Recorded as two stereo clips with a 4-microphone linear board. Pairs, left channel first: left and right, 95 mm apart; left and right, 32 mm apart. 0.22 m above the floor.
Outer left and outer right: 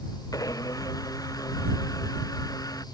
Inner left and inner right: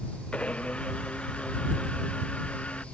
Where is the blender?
40° left (ahead or behind).